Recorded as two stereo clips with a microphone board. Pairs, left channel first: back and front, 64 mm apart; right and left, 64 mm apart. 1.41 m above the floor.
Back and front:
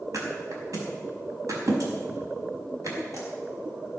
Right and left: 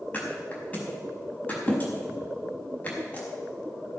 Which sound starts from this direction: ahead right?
A thud, at 0.1 s.